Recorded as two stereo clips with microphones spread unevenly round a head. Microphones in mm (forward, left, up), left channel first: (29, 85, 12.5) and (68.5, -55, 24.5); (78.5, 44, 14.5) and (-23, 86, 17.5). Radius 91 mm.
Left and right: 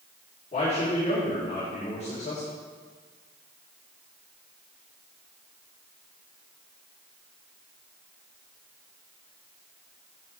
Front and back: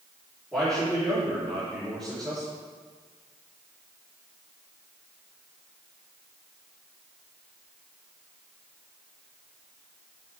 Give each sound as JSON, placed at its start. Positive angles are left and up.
{"t": 0.5, "sound": "a man speaking", "azimuth_deg": 65, "distance_m": 3.5}